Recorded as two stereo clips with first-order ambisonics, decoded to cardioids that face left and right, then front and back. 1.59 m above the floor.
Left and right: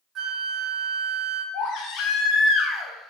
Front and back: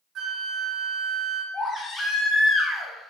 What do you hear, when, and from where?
0.1 s a flute: 140° right, 0.8 m
1.5 s a baby crying: 70° left, 0.6 m